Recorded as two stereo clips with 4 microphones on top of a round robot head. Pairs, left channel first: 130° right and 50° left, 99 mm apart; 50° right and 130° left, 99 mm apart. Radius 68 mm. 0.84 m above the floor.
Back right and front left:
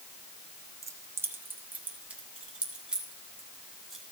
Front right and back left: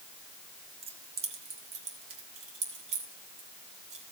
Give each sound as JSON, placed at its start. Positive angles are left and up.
{"t": 0.8, "sound": "keys jangling", "azimuth_deg": 110, "distance_m": 1.4}